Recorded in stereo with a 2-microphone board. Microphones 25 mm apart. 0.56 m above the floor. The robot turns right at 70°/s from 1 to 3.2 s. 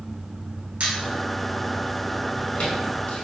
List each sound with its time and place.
0.8 s a squeak: 65° right (ahead or behind), 0.9 m; by 3.2 s 90° left, 0.9 m